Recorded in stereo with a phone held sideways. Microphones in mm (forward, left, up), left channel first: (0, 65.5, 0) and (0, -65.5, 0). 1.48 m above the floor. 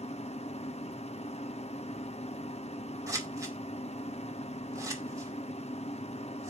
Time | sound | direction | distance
0.0 | a machine running | 55° left (ahead or behind) | 0.8 m
3.1 | scissors | 25° right (ahead or behind) | 2.5 m